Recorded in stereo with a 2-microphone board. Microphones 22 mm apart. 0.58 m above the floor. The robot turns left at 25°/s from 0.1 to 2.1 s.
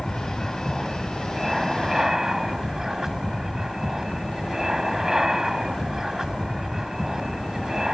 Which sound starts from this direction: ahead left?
An aircraft, at 0.0 s.